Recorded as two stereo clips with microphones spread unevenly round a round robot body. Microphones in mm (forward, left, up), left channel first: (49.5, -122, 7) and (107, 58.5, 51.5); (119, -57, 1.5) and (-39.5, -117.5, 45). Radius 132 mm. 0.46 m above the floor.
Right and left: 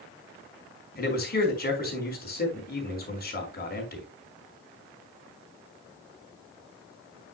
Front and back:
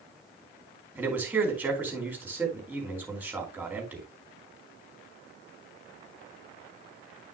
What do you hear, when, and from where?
0.9 s a man speaking: 75° right, 4 m